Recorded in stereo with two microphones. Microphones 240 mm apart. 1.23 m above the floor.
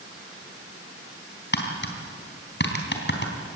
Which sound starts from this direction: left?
Tapping, at 1.5 s.